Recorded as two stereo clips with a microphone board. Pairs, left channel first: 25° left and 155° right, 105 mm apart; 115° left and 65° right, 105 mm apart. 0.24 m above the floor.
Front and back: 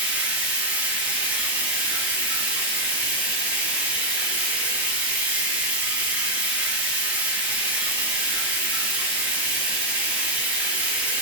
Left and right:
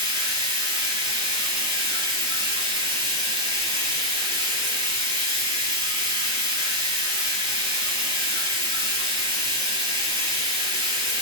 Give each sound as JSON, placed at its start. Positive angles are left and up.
{"t": 0.0, "sound": "running water", "azimuth_deg": -85, "distance_m": 0.9}